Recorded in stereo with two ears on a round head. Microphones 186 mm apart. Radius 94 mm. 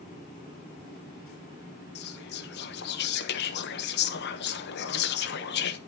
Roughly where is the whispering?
Left.